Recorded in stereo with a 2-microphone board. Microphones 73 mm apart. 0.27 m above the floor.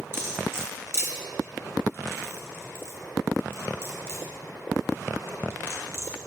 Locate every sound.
0.1 s cutlery clinking: 35° right (ahead or behind), 1.5 m